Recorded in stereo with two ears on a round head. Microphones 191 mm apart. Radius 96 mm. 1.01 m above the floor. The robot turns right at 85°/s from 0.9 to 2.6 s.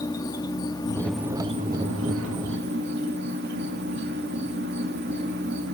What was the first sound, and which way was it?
An insect, 160° left.